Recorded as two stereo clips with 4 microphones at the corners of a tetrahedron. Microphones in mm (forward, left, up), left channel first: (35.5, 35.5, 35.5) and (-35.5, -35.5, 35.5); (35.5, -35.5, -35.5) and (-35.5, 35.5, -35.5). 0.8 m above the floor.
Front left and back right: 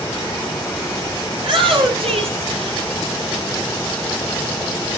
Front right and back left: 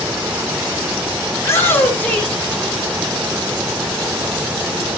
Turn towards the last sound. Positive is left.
turn(degrees=-125)